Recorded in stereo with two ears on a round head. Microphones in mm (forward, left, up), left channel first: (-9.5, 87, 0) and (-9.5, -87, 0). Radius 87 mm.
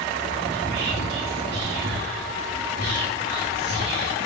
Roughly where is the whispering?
Right.